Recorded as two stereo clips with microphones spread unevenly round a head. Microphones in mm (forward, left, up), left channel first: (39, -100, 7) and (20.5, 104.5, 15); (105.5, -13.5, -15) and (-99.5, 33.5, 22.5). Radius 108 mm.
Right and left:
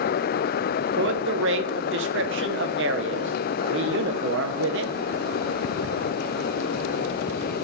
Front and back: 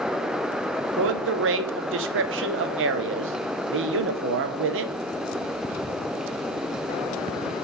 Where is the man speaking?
135° left, 0.7 m.